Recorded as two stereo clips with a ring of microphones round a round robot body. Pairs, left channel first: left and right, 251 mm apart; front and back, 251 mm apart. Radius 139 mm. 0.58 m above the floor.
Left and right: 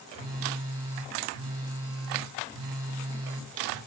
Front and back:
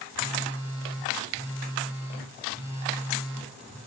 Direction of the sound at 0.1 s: 100° right.